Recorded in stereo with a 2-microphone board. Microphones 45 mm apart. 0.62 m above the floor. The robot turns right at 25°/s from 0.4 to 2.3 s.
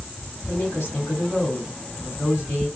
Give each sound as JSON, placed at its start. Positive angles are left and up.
{"t": 0.5, "sound": "a woman speaking", "azimuth_deg": 90, "distance_m": 1.5}